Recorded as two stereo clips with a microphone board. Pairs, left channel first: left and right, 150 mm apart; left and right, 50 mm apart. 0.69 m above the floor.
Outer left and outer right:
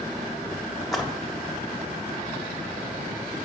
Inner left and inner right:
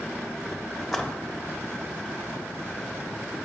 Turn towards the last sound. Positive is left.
turn(degrees=0)  # may be behind; listen again after turning